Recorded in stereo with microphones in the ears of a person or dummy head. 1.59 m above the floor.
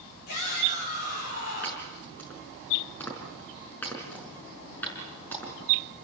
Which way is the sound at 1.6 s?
10° left (ahead or behind).